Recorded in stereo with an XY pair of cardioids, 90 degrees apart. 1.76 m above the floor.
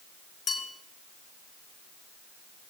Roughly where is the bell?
Ahead left.